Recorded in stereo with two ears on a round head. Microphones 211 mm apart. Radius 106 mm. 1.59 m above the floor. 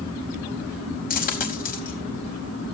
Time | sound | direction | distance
1.1 | a dropped coin | 40° left (ahead or behind) | 5 m